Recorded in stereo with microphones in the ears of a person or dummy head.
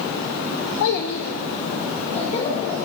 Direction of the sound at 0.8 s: 65° left (ahead or behind).